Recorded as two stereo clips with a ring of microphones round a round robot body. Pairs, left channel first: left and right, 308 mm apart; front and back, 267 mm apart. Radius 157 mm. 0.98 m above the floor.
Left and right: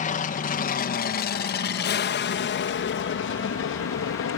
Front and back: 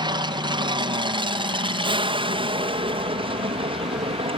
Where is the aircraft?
125° left; by 4.4 s 120° left.